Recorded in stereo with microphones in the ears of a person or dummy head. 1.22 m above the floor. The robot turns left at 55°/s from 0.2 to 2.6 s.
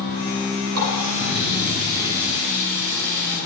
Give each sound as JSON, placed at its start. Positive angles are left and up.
{"t": 0.7, "sound": "a running tap", "azimuth_deg": -90, "distance_m": 6.0}